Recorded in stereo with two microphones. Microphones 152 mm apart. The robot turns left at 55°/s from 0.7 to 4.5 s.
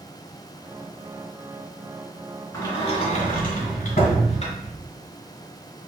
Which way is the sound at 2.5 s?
25° left (ahead or behind).